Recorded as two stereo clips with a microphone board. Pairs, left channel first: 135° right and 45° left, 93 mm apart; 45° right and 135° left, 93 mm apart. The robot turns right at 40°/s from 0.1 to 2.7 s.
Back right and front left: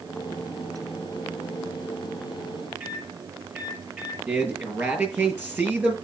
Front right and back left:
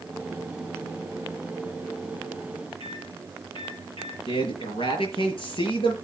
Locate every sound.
2.8 s a microwave: 30° right, 6.5 m
4.3 s a man speaking: 30° right, 5.5 m